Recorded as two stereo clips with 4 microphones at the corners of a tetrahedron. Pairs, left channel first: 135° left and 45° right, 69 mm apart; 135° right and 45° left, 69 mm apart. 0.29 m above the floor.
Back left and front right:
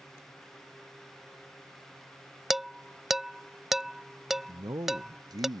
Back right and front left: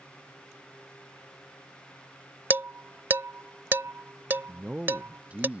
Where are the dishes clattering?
35° left.